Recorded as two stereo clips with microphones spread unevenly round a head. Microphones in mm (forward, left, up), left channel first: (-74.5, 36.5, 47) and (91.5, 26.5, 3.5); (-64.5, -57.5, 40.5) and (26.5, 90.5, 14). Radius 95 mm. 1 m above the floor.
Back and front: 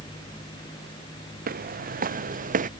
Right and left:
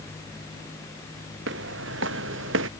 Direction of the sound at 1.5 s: 30° left.